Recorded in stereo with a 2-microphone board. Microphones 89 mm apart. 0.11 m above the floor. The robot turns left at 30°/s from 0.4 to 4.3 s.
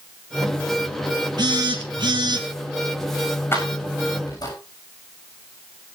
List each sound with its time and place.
1.4 s a phone buzzing: 70° right, 3 m; by 2.5 s 100° right, 3 m
3.5 s keys jangling: 30° left (ahead or behind), 7.5 m; by 4.5 s 50° left (ahead or behind), 7.5 m